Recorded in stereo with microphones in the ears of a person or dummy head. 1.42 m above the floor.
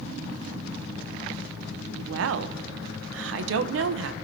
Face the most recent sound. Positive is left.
turn(degrees=-80)